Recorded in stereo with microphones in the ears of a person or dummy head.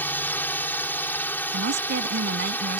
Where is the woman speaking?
60° right (ahead or behind).